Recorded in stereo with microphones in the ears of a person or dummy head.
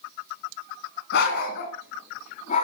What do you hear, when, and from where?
1.1 s a dog barking: 65° left (ahead or behind), 2.5 m; by 2.6 s 45° left (ahead or behind), 2.5 m